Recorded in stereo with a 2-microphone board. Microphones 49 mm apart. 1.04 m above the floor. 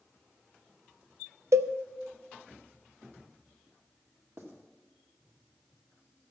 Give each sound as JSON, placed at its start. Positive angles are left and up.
{"t": 1.5, "sound": "a cowbell", "side_deg": -75, "distance_m": 0.5}
{"t": 4.4, "sound": "writing", "side_deg": -60, "distance_m": 1.9}